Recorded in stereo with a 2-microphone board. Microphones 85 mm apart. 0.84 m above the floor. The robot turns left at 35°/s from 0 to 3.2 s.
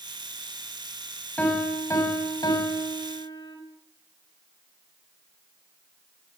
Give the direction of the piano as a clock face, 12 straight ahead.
7 o'clock.